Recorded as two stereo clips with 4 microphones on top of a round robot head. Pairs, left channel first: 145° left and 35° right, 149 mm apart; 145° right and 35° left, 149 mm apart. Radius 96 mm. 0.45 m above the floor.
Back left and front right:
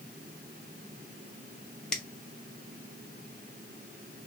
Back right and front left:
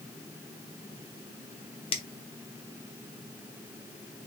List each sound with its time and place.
1.9 s a finger snap: 135° right, 0.8 m